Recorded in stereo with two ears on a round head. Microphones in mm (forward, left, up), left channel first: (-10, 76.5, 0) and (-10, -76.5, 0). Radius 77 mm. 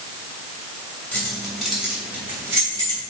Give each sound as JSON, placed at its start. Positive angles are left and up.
{"t": 1.1, "sound": "keys jangling", "side_deg": 5, "distance_m": 3.0}